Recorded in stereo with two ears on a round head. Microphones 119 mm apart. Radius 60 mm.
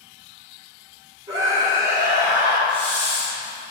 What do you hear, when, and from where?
1.3 s a scream: 30° right (ahead or behind), 2.5 m; by 2.6 s 15° right (ahead or behind), 3 m
2.7 s a hiss: 35° right (ahead or behind), 2 m